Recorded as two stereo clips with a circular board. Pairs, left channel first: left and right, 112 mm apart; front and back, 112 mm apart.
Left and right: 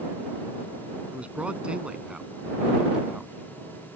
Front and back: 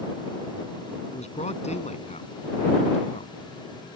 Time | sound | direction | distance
1.1 | a man speaking | 10° right | ?